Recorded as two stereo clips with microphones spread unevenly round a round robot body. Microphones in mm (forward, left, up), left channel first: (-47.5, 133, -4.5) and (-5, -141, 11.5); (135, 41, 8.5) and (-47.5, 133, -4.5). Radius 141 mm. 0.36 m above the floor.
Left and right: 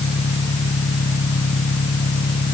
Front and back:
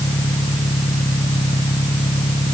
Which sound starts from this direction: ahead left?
An engine running, at 0.0 s.